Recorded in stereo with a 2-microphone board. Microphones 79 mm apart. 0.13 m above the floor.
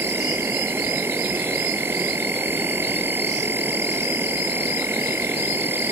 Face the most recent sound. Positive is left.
turn(degrees=-30)  # may be behind; listen again after turning